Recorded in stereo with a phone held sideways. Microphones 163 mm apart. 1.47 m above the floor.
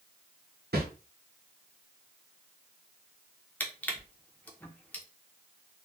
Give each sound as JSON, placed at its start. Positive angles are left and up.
{"t": 0.7, "sound": "a whoosh", "side_deg": -80, "distance_m": 0.8}
{"t": 3.6, "sound": "crushing", "side_deg": 10, "distance_m": 0.6}